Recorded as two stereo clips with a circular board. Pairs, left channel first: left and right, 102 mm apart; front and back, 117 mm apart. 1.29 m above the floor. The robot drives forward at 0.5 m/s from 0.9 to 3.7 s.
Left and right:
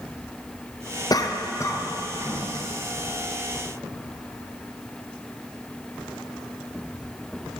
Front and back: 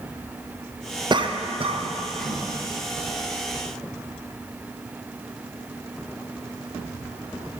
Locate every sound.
1.1 s a cough: 135° left, 0.6 m; by 2.4 s 160° left, 1.2 m